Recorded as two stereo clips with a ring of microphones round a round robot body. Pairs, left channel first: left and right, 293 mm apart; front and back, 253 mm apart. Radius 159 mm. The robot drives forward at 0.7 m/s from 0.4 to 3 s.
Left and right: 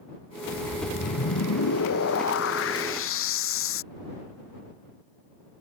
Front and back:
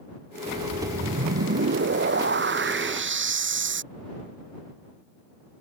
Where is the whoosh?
130° left; by 3.8 s 140° left.